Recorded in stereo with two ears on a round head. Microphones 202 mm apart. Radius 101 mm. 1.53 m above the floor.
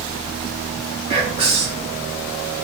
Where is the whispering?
25° right (ahead or behind), 0.8 m.